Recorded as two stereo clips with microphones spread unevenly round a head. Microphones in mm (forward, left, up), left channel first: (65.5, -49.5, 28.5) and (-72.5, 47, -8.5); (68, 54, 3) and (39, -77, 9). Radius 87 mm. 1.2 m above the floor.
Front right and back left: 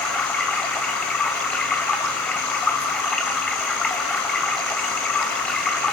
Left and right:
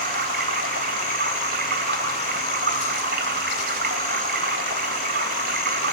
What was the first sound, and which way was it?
Running water, 115° right.